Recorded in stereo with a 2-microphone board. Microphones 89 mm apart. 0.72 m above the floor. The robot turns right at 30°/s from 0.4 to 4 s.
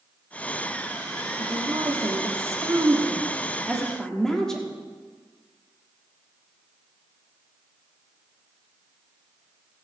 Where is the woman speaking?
70° right, 1.5 m; by 4.7 s 5° left, 1.5 m.